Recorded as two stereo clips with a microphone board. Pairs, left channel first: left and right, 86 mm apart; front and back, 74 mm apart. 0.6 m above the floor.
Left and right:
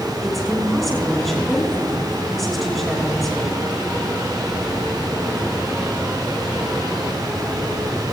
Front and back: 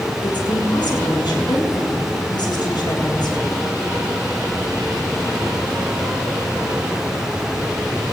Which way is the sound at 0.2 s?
5° left.